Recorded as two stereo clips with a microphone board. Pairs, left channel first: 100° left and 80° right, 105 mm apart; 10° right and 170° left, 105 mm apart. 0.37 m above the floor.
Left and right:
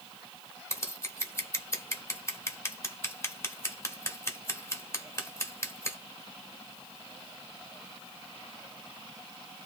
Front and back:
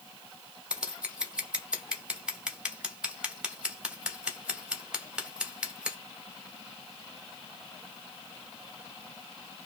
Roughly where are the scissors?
Left.